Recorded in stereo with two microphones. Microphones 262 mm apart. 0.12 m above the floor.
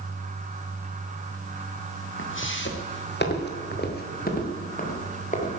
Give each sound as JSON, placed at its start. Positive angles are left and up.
{"t": 2.2, "sound": "footsteps", "side_deg": 50, "distance_m": 2.5}